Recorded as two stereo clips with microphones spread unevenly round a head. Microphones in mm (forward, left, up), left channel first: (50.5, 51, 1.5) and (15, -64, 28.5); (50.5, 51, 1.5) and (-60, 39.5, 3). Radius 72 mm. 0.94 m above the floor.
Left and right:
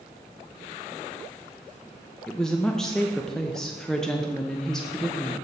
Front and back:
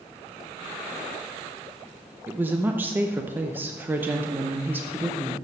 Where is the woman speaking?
130° left, 0.6 m.